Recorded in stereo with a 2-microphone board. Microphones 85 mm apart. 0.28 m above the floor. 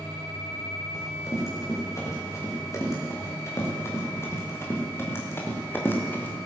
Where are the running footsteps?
40° left (ahead or behind), 6.5 m; by 6.4 s 20° left (ahead or behind), 3 m.